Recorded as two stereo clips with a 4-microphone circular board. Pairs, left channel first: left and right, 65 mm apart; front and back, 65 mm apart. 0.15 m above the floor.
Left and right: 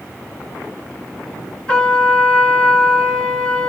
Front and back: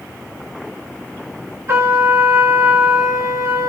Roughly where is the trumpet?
Behind.